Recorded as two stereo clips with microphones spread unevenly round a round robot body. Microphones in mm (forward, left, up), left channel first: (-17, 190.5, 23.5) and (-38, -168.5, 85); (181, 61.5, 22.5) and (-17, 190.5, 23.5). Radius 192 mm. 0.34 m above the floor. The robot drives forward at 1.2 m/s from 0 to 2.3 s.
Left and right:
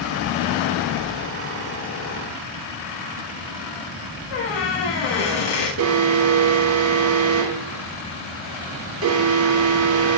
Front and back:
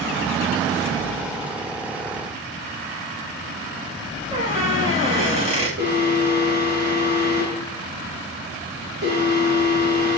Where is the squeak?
80° left, 7 m.